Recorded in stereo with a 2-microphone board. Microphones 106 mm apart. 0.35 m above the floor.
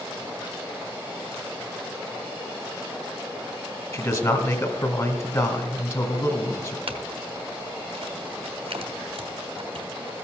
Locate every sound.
3.9 s a man speaking: 35° left (ahead or behind), 1.7 m
6.9 s a clink: 70° right (ahead or behind), 1.3 m